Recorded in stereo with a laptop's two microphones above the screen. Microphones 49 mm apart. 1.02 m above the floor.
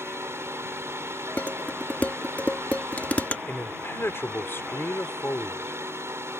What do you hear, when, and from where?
0.0 s a fan: 70° right (ahead or behind)
1.4 s dishes clattering: 35° left (ahead or behind)
3.5 s a man speaking: 60° left (ahead or behind)